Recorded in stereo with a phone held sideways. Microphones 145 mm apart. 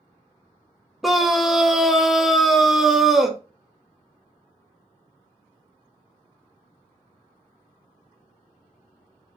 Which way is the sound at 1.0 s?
Centre (ahead or behind).